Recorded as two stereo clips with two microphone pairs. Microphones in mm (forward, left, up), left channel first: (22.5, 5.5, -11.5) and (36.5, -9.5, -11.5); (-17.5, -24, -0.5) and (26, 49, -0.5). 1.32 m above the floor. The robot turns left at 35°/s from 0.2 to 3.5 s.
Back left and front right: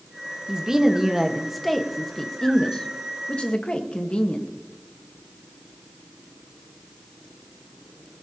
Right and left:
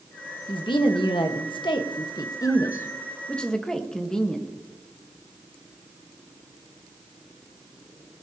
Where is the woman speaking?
95° right, 1.3 m; by 4.5 s 155° left, 1.3 m.